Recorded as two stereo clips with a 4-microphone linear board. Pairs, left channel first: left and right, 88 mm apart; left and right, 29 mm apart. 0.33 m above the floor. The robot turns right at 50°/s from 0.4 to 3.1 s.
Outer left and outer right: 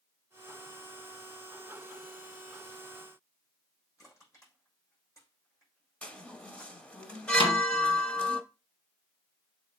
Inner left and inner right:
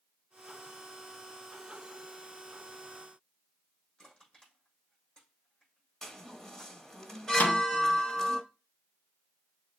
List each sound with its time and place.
4.0 s crushing: 35° left (ahead or behind), 6 m
6.0 s a chime: 15° left (ahead or behind), 1.0 m
7.4 s a snare drum: 80° left, 1.5 m